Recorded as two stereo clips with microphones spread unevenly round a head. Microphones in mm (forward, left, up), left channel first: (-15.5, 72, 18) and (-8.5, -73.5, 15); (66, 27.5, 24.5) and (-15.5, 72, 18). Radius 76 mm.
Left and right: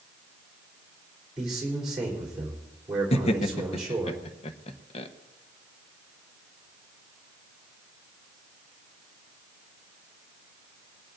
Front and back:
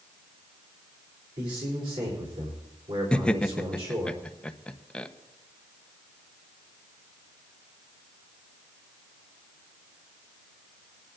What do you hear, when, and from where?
1.4 s a man speaking: 175° right, 3.5 m
3.1 s laughter: 50° left, 0.9 m